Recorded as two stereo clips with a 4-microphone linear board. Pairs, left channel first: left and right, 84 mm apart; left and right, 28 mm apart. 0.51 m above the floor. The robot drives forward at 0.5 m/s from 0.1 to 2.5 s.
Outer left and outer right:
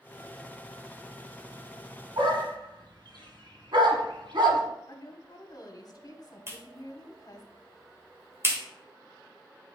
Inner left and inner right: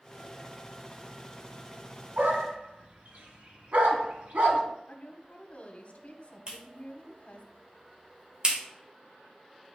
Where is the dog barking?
75° right (ahead or behind), 1.0 m; by 4.6 s 65° right (ahead or behind), 1.1 m.